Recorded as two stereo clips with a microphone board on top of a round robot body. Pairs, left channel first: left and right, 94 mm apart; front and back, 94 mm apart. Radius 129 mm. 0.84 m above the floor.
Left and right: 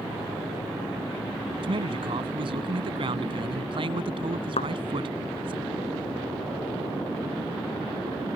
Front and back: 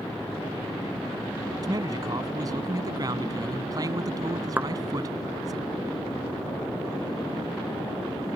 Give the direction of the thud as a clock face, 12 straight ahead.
8 o'clock.